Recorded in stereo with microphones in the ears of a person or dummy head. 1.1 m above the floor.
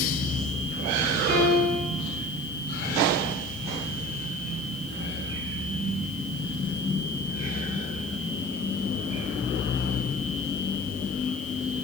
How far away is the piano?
About 2.5 m.